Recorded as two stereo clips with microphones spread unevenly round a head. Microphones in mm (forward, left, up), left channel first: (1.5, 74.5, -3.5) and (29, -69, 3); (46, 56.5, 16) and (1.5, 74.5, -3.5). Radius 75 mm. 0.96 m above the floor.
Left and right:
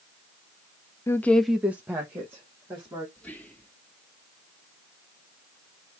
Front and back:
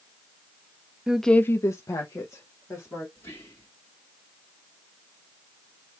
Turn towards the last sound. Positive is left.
turn(degrees=15)